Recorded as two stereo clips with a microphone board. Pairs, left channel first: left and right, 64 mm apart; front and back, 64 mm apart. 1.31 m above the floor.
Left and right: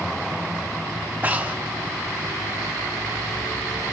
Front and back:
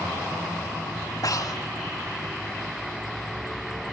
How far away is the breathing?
About 1.9 m.